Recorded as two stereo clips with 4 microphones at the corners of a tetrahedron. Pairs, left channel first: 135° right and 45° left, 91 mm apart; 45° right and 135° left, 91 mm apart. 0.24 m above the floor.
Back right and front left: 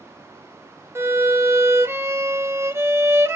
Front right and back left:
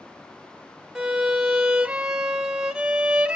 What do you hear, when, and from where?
0.9 s a violin: 65° left, 0.7 m